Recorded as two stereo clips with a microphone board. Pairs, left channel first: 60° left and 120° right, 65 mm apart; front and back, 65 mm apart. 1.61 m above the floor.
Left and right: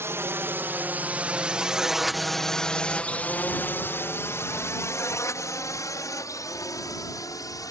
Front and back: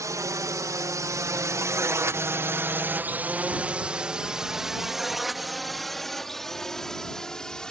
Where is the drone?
160° right; by 7.7 s 80° left.